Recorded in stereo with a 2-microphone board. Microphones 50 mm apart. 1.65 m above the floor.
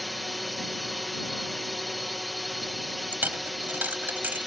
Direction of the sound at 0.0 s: Centre (ahead or behind).